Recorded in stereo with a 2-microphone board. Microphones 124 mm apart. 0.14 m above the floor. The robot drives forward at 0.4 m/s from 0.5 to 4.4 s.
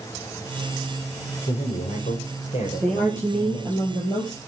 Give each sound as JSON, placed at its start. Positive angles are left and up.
{"t": 1.5, "sound": "a man speaking", "side_deg": 70, "distance_m": 5.0}
{"t": 2.8, "sound": "a woman speaking", "side_deg": 10, "distance_m": 3.0}